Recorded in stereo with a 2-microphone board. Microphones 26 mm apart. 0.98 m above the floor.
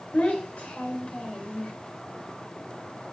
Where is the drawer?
I don't hear a drawer.